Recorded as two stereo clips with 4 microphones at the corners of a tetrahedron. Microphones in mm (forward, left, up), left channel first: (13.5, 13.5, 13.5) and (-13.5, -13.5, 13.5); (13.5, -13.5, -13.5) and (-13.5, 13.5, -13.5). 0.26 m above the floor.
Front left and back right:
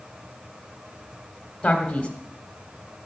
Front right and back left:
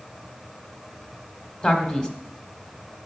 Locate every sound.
1.6 s a man speaking: 5° right, 1.3 m